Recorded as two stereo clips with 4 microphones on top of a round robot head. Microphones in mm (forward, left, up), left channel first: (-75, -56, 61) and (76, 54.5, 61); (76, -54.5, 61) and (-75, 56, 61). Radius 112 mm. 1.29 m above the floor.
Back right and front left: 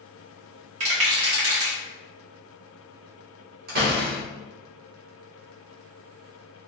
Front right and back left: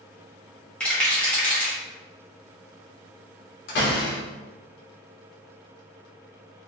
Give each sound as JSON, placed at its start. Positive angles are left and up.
{"t": 0.8, "sound": "a rattle", "azimuth_deg": 50, "distance_m": 1.2}
{"t": 3.7, "sound": "a door slam", "azimuth_deg": -5, "distance_m": 1.2}